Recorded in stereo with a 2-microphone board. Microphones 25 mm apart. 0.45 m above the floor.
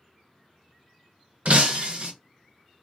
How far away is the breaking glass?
About 0.7 m.